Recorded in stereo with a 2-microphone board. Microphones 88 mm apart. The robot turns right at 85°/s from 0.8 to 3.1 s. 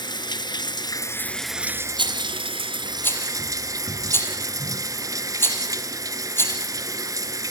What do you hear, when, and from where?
0.0 s running water: 125° left, 1.1 m; by 7.5 s 40° right, 1.1 m
2.0 s a rattle: 65° right (ahead or behind), 5 m; by 7.5 s 25° left (ahead or behind), 5 m